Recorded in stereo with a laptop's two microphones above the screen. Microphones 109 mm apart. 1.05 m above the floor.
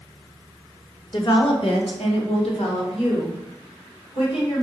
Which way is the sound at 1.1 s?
45° left (ahead or behind).